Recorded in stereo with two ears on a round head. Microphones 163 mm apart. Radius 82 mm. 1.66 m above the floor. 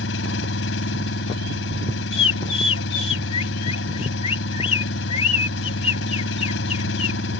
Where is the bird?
35° left (ahead or behind).